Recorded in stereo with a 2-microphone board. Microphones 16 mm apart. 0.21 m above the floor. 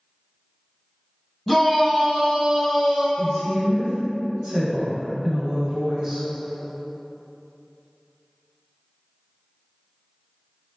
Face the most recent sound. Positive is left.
turn(degrees=-15)  # may be behind; listen again after turning